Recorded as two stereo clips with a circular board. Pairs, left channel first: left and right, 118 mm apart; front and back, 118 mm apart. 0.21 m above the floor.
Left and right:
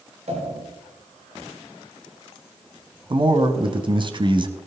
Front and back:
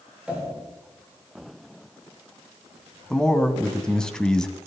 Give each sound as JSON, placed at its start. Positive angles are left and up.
{"t": 0.3, "sound": "a pop", "azimuth_deg": -100, "distance_m": 6.0}
{"t": 3.1, "sound": "a man speaking", "azimuth_deg": -80, "distance_m": 1.6}